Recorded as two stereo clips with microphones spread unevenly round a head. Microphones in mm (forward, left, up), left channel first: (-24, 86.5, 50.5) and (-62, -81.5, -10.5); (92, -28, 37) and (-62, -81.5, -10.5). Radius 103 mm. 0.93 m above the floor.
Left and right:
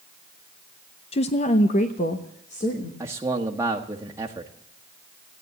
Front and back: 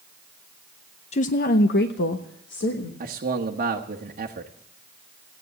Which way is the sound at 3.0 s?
165° right.